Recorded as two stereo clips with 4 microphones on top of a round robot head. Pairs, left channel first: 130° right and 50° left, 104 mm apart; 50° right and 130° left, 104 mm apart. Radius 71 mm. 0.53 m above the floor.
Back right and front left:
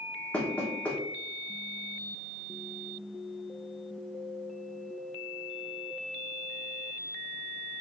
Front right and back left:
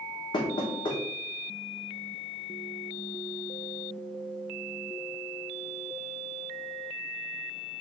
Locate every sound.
0.3 s knocking: 60° right, 1.2 m